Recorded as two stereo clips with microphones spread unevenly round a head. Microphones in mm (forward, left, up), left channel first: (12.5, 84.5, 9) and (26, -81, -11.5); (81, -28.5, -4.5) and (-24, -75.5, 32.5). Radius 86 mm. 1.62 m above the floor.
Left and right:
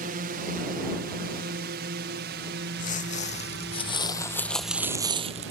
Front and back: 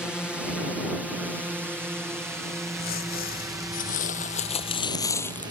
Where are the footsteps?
60° left; by 5.5 s 80° right.